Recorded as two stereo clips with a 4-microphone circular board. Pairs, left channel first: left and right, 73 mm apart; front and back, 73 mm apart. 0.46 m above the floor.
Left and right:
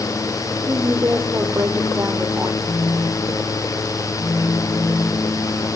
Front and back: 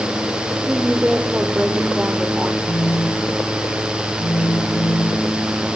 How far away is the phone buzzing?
About 0.8 m.